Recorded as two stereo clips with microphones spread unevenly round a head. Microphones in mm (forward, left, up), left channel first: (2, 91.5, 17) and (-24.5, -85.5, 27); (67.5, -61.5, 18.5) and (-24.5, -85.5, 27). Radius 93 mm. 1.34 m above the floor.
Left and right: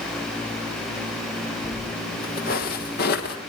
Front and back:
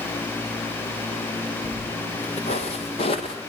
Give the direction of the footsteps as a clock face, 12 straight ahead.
11 o'clock.